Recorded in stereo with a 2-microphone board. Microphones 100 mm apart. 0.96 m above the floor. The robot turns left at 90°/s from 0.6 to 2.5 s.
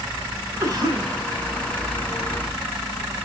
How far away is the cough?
About 4 m.